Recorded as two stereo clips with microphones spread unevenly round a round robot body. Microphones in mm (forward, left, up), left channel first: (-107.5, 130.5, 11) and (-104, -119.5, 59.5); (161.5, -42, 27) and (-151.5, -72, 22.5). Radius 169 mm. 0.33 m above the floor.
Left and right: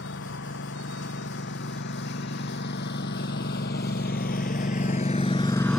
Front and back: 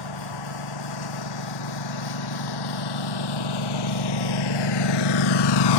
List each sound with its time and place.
0.0 s a lawn mower: 35° left; by 5.8 s straight ahead